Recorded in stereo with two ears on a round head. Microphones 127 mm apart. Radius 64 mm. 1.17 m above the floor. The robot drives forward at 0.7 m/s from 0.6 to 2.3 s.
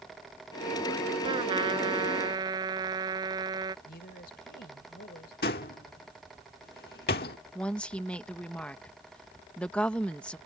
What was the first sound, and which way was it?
A trumpet, 35° right (ahead or behind).